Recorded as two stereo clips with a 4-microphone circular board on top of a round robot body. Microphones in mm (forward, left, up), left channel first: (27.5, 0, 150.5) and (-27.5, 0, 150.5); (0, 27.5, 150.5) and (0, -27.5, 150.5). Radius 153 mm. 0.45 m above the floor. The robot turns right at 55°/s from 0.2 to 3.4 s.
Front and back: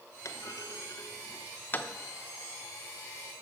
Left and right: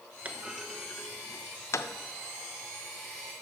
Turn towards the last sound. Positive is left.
turn(degrees=145)